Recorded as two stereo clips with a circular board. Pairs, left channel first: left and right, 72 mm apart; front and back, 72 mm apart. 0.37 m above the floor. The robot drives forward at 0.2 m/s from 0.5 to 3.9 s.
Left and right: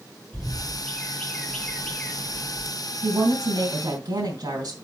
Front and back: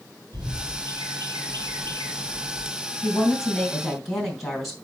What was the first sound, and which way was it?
A bird, 175° left.